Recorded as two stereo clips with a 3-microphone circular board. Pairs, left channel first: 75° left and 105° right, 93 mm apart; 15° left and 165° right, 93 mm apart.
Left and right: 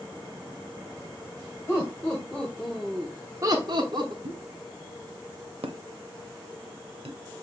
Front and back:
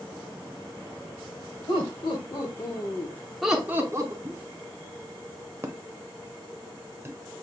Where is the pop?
100° right, 0.7 m.